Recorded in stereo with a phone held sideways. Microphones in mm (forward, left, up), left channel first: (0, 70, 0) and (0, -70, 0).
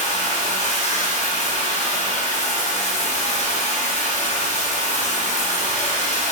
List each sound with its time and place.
0.0 s running water: 55° left (ahead or behind), 0.8 m